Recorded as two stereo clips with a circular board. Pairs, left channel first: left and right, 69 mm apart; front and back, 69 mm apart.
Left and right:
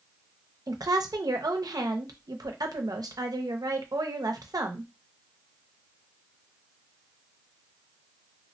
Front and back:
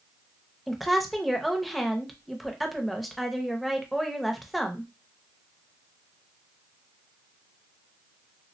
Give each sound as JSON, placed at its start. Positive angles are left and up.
{"t": 0.7, "sound": "a woman speaking", "azimuth_deg": -90, "distance_m": 0.6}